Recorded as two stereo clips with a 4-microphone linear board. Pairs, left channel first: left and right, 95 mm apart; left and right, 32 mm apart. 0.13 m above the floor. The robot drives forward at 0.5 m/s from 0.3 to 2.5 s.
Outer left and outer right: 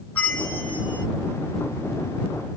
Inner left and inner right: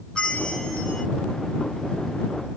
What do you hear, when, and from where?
0.1 s a bell: 20° left (ahead or behind), 1.0 m